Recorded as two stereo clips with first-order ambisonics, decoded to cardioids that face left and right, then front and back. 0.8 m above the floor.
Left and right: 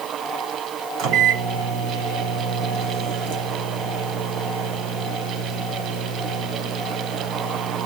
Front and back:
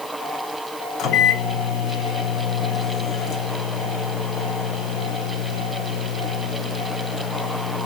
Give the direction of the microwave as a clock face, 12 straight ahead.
2 o'clock.